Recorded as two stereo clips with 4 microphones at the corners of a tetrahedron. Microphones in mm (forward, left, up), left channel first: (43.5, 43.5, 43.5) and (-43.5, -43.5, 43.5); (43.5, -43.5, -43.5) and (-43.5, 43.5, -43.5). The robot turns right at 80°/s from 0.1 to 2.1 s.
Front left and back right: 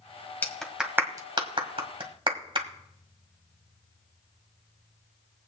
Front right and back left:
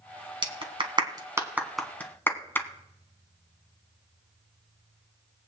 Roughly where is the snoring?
No snoring in this recording.